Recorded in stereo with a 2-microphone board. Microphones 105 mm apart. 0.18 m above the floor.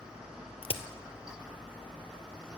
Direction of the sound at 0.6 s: 70° left (ahead or behind).